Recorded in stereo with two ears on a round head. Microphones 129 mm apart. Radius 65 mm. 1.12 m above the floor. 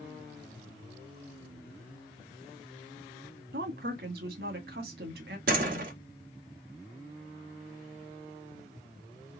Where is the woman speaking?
80° right, 1.9 m.